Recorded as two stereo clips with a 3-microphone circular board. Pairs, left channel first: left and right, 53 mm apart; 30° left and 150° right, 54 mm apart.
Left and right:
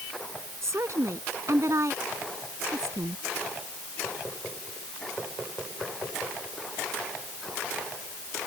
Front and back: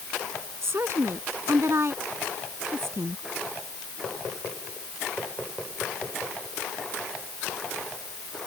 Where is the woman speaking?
115° right.